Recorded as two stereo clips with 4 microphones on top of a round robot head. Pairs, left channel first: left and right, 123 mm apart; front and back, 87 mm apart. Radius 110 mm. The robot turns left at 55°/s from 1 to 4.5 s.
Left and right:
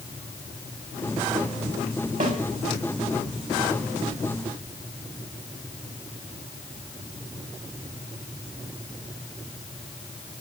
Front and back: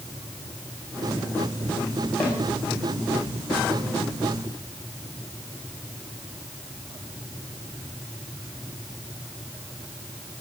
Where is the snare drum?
80° right, 7 m; by 2.4 s 90° right, 7 m.